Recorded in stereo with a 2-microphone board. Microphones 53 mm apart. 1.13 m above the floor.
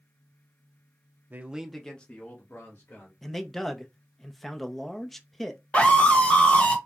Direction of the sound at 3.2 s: 5° left (ahead or behind).